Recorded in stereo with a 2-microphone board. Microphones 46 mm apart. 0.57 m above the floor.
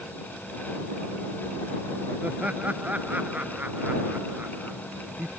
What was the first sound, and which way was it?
Laughter, 30° right (ahead or behind).